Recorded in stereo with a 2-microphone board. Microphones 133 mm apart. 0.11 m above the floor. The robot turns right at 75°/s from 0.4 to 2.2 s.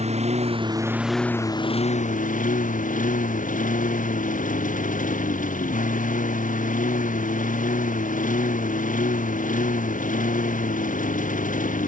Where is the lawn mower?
55° right; by 11.9 s 80° left.